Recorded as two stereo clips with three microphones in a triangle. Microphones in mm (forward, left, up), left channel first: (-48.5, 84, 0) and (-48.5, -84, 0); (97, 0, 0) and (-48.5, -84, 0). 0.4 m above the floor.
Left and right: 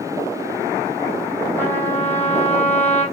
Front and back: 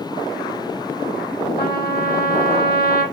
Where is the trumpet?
10° left, 2.5 m.